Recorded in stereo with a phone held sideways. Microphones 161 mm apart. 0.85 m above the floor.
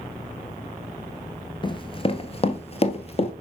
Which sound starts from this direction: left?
Running footsteps, at 1.6 s.